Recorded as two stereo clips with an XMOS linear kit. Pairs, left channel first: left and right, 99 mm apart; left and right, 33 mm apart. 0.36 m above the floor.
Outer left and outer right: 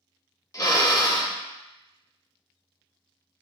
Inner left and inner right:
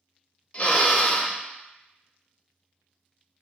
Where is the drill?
35° left (ahead or behind), 0.7 m.